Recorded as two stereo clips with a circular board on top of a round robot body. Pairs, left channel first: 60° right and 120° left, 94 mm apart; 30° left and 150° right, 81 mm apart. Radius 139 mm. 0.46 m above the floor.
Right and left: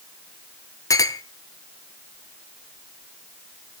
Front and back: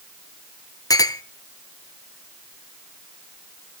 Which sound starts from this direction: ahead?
A clink, at 0.9 s.